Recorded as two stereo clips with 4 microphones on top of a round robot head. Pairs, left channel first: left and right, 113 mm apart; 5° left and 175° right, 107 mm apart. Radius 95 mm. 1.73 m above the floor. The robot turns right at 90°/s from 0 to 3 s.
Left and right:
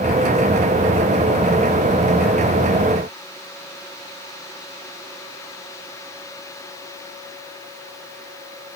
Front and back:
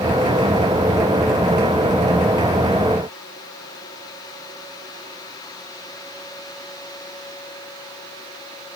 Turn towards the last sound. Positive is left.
No sound to turn to.